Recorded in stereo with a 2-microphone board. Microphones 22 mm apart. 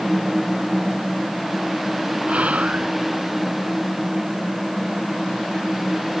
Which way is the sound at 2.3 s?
80° right.